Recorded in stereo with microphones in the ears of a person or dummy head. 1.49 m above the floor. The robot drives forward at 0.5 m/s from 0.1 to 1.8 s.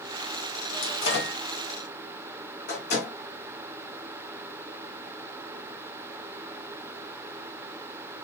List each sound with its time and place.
0.8 s a microwave: 65° left (ahead or behind), 1.0 m; by 3.1 s 55° left (ahead or behind), 1.2 m